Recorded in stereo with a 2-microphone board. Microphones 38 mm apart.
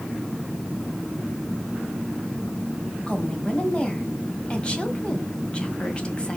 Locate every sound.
3.1 s a woman speaking: 25° left (ahead or behind), 1.6 m